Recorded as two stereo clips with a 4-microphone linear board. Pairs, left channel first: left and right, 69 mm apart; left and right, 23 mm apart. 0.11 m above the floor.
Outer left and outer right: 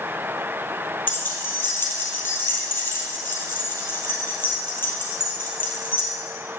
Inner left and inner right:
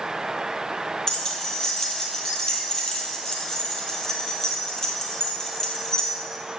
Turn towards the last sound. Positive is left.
turn(degrees=30)  # may be behind; listen again after turning